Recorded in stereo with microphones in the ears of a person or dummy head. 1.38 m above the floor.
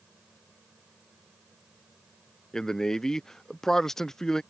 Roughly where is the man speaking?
Centre.